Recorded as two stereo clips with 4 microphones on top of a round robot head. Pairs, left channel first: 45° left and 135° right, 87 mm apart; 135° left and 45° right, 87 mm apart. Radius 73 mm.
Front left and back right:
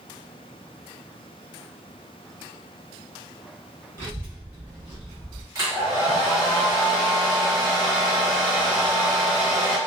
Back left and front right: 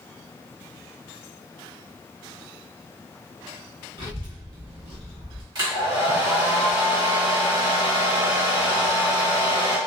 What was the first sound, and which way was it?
A child speaking, 75° right.